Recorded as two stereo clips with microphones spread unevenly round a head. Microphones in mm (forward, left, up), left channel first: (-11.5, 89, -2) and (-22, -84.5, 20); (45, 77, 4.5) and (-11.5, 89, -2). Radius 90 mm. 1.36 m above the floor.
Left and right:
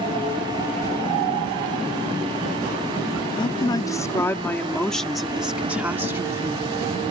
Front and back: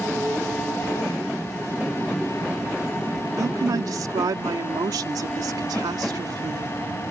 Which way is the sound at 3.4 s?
150° left.